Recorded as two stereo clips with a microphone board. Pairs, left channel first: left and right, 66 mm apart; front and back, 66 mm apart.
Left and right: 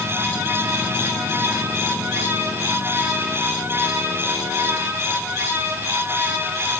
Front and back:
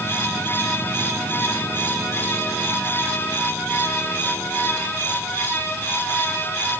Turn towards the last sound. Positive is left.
No sound to turn to.